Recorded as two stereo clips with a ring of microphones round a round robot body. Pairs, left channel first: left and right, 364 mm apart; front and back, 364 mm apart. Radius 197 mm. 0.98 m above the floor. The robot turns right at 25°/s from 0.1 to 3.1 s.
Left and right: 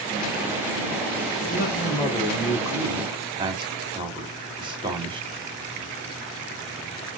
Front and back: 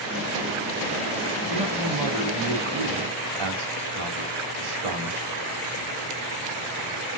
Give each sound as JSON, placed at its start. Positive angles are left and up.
{"t": 1.5, "sound": "a man speaking", "azimuth_deg": 150, "distance_m": 2.5}